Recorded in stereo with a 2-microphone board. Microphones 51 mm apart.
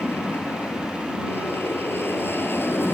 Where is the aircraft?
45° left (ahead or behind).